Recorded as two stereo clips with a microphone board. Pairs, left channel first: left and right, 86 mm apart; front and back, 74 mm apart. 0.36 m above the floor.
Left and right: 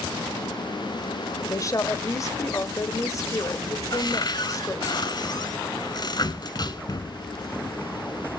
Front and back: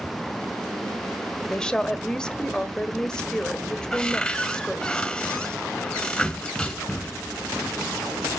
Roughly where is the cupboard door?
Left.